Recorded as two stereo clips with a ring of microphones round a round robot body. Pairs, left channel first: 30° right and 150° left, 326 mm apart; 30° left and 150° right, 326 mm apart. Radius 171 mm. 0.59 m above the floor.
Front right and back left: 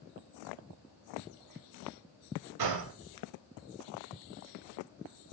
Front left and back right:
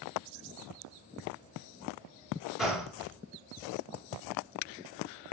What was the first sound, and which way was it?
A gunshot, 120° left.